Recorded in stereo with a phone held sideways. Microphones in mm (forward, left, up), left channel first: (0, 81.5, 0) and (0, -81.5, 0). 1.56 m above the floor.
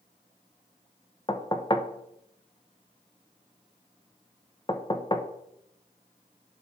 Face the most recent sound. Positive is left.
turn(degrees=30)  # may be behind; listen again after turning